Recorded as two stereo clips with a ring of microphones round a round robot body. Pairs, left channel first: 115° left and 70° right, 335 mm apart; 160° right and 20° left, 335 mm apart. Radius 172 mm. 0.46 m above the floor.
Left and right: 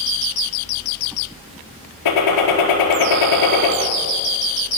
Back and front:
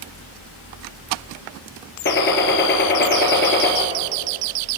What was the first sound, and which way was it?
A gunshot, 145° left.